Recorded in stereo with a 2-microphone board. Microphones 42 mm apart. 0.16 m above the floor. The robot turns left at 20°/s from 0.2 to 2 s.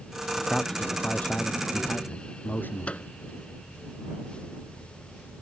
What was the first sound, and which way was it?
A man speaking, 165° left.